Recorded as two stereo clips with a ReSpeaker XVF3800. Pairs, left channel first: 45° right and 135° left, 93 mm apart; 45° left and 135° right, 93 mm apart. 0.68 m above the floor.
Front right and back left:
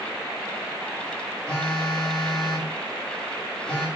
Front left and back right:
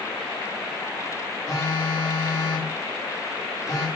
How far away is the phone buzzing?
About 1.1 m.